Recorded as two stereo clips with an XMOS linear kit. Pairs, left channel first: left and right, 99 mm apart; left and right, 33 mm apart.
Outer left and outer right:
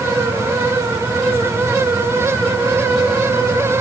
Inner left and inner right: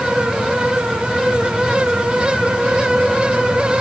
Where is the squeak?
No squeak in this recording.